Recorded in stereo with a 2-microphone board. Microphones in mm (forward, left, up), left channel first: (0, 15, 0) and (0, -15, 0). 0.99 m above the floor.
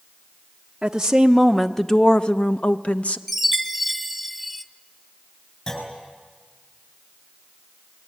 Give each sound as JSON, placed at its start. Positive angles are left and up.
{"t": 0.8, "sound": "a woman speaking", "side_deg": -25, "distance_m": 0.9}
{"t": 3.3, "sound": "a chime", "side_deg": 0, "distance_m": 0.9}
{"t": 5.7, "sound": "a clunk", "side_deg": 30, "distance_m": 6.5}